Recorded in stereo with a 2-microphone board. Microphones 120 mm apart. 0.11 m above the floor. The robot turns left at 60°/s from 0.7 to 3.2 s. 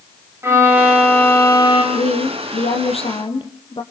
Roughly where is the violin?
Behind.